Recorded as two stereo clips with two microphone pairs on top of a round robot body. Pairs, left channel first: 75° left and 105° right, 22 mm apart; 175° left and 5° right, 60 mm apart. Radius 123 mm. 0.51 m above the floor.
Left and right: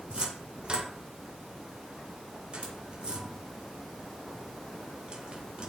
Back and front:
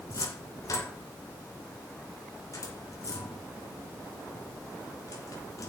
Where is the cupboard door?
155° right, 2 m.